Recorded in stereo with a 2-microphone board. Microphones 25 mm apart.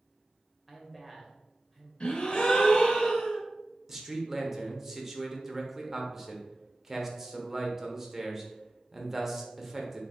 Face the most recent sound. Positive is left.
turn(degrees=-20)  # may be behind; listen again after turning